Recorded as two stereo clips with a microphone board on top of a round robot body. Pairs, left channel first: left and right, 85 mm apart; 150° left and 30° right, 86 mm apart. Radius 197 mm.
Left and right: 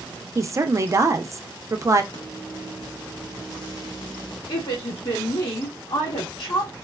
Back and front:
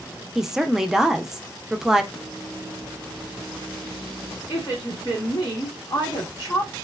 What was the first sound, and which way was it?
A woman speaking, 110° right.